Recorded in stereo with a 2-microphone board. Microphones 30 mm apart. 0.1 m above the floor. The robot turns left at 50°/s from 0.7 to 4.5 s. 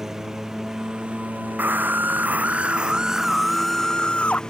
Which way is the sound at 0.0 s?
15° right.